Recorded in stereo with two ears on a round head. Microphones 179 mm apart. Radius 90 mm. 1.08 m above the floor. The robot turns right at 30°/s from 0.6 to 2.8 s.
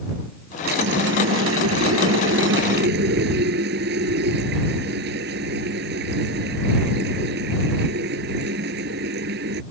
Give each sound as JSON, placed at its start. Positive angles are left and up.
{"t": 0.7, "sound": "a running tap", "azimuth_deg": -125}